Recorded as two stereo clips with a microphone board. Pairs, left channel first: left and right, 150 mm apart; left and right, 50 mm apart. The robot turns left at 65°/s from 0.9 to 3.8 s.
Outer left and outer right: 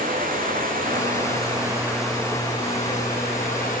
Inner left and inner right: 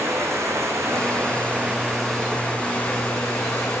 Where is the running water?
105° right, 8.5 m; by 3.8 s 65° left, 8.5 m.